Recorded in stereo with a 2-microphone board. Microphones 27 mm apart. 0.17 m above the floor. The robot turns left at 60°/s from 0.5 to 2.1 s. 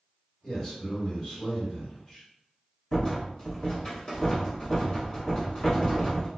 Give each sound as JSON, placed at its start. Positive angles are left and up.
{"t": 0.4, "sound": "a man speaking", "azimuth_deg": 125, "distance_m": 1.7}
{"t": 2.9, "sound": "a rattle", "side_deg": 25, "distance_m": 1.3}